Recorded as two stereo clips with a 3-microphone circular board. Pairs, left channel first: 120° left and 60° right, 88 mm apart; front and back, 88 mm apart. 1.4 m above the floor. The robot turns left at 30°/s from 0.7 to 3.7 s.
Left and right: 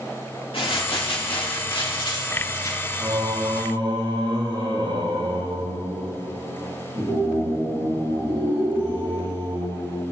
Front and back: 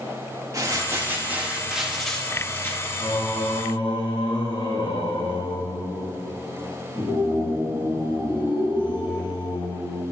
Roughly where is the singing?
Ahead.